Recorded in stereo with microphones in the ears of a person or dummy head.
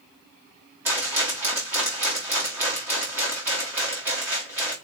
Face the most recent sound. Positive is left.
turn(degrees=-15)  # may be behind; listen again after turning